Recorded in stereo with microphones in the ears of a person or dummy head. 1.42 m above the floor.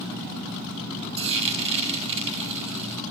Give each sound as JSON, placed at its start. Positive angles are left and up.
{"t": 1.2, "sound": "frying", "side_deg": -35, "distance_m": 2.5}